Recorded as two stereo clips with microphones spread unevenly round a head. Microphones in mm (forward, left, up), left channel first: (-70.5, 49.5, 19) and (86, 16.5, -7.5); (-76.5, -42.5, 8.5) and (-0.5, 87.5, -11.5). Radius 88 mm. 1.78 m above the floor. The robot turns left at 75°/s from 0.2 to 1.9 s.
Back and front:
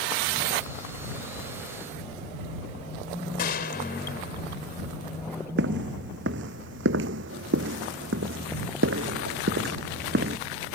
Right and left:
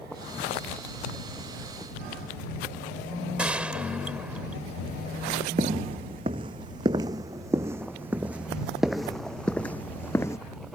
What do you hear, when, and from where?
3.4 s a gunshot: 145° left
5.6 s footsteps: straight ahead; by 10.4 s 50° right